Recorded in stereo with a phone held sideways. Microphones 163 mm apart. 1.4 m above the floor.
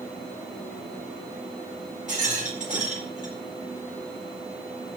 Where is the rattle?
50° right (ahead or behind), 4.5 m.